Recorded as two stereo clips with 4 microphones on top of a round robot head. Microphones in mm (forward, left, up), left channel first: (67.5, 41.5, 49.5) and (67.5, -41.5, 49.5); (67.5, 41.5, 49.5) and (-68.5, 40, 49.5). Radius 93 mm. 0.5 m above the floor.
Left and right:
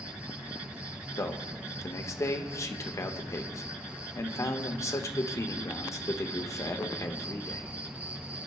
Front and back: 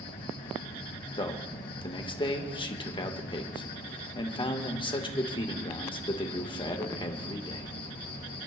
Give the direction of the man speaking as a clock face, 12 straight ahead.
10 o'clock.